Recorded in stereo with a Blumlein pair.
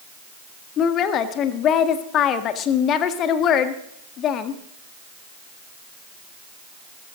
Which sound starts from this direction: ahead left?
A woman speaking, at 0.8 s.